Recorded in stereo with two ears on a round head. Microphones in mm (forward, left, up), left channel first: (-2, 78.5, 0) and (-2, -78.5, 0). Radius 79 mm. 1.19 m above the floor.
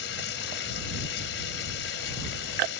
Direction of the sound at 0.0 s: 75° left (ahead or behind).